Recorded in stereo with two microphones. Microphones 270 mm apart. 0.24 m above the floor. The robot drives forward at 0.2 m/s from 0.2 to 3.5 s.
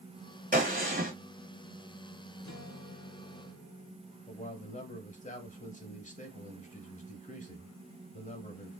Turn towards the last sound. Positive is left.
turn(degrees=25)  # may be behind; listen again after turning